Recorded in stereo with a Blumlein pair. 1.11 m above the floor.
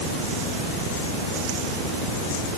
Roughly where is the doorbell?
No doorbell in this recording.